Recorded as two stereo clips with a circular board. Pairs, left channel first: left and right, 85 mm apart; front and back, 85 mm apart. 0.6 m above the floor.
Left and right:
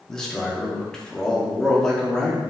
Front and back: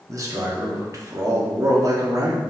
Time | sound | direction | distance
0.1 | a man speaking | 170° left | 0.9 m